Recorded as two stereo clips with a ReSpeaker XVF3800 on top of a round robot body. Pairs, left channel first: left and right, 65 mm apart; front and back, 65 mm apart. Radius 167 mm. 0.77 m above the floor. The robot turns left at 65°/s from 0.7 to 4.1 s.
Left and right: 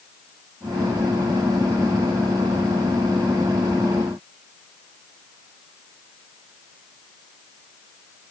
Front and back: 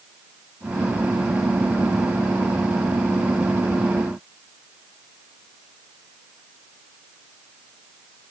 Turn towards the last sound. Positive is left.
No sound to turn to.